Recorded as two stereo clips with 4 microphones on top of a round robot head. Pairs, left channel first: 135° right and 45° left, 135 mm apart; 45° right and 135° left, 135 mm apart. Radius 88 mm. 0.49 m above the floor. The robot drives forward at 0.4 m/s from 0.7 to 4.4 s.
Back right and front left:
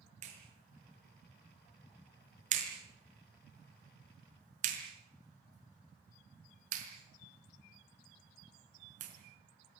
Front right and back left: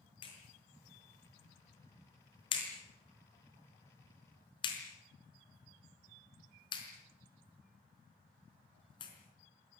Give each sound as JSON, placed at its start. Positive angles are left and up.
{"t": 0.2, "sound": "a clap", "azimuth_deg": 10, "distance_m": 6.0}